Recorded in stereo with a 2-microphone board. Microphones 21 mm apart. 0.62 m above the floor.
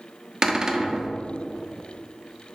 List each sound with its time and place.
0.4 s a cupboard door: 30° right (ahead or behind), 1.0 m